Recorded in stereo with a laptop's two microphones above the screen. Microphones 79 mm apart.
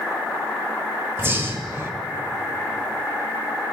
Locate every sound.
1.2 s breathing: 30° right (ahead or behind), 1.5 m